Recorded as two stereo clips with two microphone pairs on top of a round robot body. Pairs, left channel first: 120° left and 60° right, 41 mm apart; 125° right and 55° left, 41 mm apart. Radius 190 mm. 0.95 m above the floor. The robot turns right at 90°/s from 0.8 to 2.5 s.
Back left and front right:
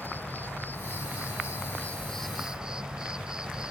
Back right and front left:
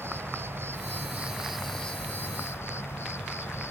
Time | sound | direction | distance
0.0 | an insect | 75° left | ?